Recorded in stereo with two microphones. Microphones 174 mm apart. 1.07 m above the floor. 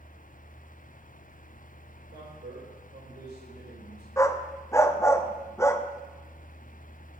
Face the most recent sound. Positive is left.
turn(degrees=15)  # may be behind; listen again after turning